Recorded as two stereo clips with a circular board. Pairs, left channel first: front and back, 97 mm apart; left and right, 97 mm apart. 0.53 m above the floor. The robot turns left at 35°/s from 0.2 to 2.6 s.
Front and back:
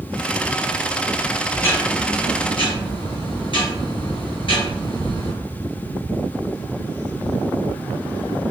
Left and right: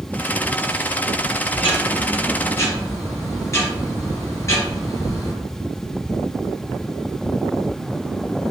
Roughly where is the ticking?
Ahead left.